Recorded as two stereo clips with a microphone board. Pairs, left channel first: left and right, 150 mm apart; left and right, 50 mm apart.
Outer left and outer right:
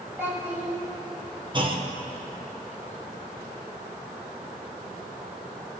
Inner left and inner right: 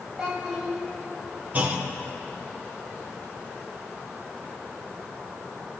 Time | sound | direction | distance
0.2 | a child speaking | 10° right (ahead or behind) | 4 m
1.5 | a clunk | 35° right (ahead or behind) | 1.0 m